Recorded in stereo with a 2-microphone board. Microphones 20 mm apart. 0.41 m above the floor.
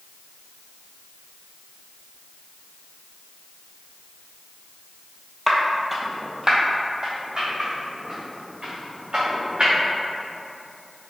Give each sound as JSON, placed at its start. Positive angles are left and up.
{"t": 5.5, "sound": "footsteps", "side_deg": 20, "distance_m": 0.6}